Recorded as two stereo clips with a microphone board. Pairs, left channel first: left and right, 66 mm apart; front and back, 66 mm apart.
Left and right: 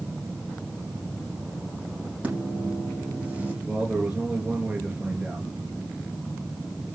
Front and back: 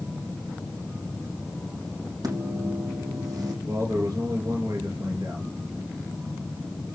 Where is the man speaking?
165° right, 3.5 m.